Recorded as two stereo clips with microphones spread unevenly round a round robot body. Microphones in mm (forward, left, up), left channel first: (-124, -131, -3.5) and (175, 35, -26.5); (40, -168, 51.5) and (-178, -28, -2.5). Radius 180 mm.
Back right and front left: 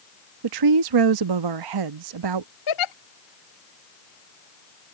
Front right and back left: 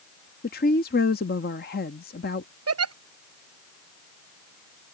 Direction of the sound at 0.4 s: 35° left.